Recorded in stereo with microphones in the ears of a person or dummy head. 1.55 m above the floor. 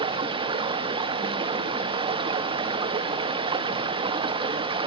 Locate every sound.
0.0 s running water: 25° right (ahead or behind), 0.7 m